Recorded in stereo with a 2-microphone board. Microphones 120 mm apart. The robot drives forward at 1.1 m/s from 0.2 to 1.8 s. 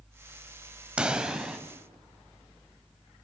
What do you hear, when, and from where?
1.0 s a pop: 10° right (ahead or behind), 1.4 m; by 1.6 s 5° right (ahead or behind), 1.9 m